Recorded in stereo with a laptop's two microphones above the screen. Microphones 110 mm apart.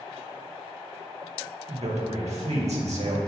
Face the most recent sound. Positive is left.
turn(degrees=-80)